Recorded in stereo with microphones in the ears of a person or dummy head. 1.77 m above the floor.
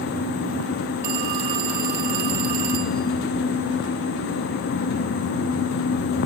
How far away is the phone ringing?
About 2.5 m.